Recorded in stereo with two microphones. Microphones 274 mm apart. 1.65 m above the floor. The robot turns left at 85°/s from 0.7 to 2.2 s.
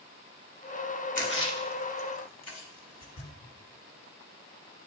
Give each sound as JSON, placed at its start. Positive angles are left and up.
{"t": 1.1, "sound": "a splash", "side_deg": 25, "distance_m": 1.1}